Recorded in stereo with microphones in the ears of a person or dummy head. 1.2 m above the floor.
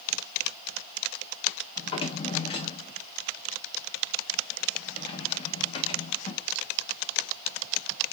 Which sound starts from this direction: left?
A drawer, at 1.8 s.